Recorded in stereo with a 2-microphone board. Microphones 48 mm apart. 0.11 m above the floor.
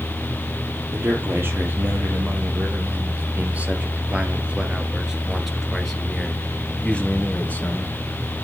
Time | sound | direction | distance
0.9 | a man speaking | 55° right (ahead or behind) | 3.5 m